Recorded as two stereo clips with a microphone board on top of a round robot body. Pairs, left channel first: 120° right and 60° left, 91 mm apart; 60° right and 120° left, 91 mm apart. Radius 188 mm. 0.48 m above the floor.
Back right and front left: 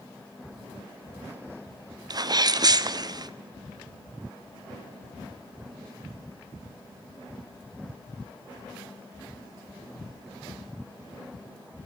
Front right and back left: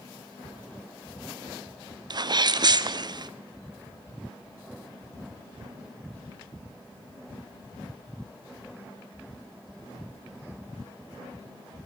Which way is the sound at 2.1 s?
90° left.